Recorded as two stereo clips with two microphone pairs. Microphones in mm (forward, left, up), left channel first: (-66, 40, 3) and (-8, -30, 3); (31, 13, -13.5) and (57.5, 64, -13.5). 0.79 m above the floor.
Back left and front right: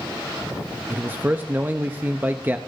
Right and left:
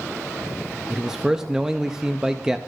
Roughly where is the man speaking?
Ahead.